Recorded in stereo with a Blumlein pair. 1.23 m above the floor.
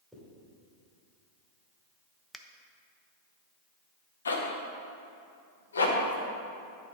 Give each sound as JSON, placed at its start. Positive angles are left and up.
{"t": 0.1, "sound": "a zipper", "azimuth_deg": 0, "distance_m": 2.5}
{"t": 2.3, "sound": "a finger snap", "azimuth_deg": 5, "distance_m": 0.6}
{"t": 4.2, "sound": "a zipper", "azimuth_deg": 70, "distance_m": 1.1}